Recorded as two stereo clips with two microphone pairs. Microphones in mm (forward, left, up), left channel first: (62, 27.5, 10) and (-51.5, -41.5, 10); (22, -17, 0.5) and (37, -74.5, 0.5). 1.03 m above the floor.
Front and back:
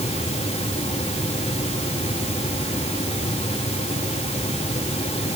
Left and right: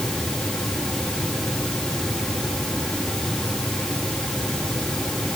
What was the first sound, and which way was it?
Only background noise.